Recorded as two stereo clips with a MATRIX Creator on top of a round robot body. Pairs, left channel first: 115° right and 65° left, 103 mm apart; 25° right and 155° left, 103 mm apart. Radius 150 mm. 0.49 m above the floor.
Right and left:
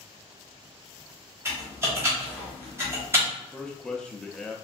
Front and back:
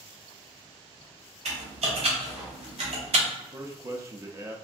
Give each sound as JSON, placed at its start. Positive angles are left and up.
{"t": 1.4, "sound": "typing on a keyboard", "azimuth_deg": 135, "distance_m": 1.2}
{"t": 3.4, "sound": "a man speaking", "azimuth_deg": 175, "distance_m": 0.7}